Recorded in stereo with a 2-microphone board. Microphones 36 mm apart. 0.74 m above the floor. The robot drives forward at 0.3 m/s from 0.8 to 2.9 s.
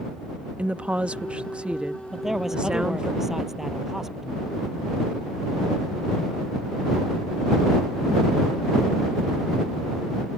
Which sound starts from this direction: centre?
A man speaking, at 2.1 s.